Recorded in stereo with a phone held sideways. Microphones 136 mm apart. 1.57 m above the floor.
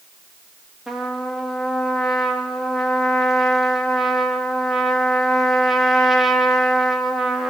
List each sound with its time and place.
0.9 s a trumpet: centre (ahead or behind), 3.5 m